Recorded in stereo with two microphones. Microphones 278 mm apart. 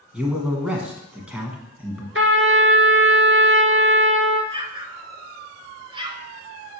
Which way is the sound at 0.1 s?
5° right (ahead or behind).